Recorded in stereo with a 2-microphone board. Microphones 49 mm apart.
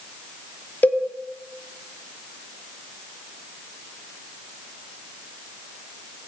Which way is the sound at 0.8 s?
35° left (ahead or behind).